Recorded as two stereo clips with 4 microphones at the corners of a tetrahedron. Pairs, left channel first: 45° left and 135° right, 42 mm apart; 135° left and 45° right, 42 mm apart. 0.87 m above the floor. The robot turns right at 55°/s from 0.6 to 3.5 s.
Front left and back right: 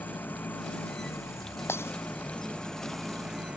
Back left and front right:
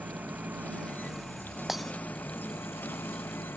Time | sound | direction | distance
0.0 | an engine running | 5° left | ?
1.7 | breaking glass | 35° left | ?